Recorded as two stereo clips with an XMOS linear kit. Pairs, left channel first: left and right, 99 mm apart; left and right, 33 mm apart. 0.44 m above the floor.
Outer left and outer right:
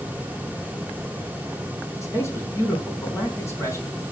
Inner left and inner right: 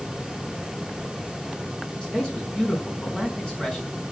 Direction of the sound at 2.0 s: 30° left (ahead or behind).